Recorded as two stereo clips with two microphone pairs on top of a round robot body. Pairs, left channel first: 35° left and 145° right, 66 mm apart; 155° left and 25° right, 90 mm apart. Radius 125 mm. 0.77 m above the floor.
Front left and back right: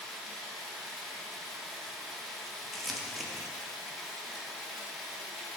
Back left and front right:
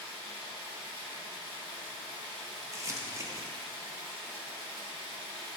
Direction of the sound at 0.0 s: 55° right.